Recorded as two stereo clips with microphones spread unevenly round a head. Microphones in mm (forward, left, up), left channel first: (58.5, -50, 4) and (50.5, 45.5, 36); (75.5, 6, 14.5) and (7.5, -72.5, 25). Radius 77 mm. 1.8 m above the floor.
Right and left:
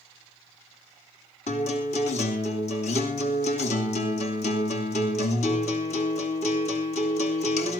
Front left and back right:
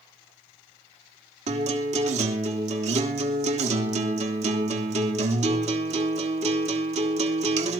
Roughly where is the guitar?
Behind right.